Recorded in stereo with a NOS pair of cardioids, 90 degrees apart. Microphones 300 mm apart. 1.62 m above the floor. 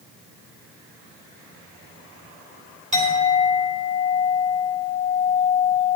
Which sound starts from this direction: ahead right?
A clink, at 2.9 s.